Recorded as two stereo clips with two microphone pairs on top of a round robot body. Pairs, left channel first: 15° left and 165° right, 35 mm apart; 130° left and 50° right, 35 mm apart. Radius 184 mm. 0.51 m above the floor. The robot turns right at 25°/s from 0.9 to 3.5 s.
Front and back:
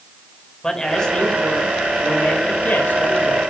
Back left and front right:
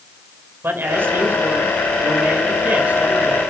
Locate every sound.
0.6 s a man speaking: 60° right, 5 m; by 3.4 s 5° left, 5 m